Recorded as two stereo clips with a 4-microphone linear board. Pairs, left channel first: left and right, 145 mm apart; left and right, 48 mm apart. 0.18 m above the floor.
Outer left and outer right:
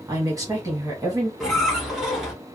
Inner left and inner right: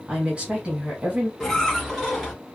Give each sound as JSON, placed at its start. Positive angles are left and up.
{"t": 0.1, "sound": "a woman speaking", "side_deg": -25, "distance_m": 1.2}
{"t": 1.4, "sound": "a squeak", "side_deg": 0, "distance_m": 1.4}